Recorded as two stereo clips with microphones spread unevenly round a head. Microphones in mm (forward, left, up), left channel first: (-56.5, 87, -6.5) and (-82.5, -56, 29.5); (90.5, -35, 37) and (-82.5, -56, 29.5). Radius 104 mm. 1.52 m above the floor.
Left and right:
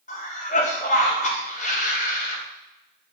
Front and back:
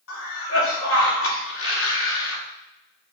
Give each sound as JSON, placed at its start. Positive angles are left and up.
{"t": 0.1, "sound": "a cough", "azimuth_deg": 25, "distance_m": 3.5}